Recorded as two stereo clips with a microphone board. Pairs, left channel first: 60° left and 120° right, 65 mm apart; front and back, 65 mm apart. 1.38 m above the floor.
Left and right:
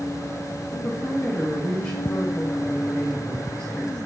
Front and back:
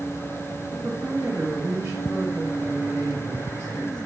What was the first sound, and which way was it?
A woman speaking, 110° left.